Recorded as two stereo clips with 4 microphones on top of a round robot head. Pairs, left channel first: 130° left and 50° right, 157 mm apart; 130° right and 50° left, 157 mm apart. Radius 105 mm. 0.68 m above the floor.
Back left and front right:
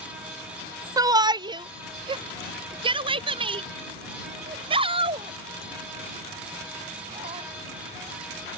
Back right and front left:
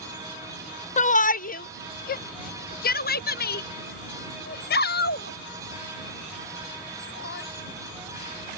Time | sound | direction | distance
1.0 | a shout | 110° right | ?